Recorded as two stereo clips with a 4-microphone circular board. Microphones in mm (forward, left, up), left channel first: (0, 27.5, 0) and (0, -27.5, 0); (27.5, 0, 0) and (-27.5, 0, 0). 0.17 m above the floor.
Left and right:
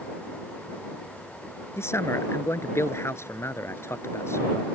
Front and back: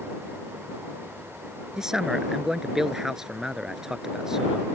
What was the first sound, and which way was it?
A man speaking, 100° left.